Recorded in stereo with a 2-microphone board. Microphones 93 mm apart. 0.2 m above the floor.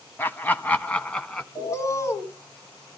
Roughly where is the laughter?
Left.